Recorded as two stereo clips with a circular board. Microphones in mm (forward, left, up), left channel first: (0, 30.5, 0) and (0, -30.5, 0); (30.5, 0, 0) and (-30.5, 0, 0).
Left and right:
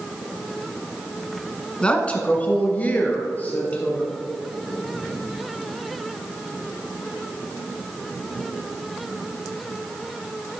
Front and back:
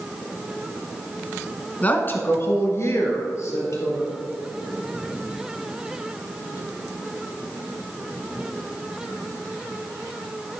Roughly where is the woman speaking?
Ahead left.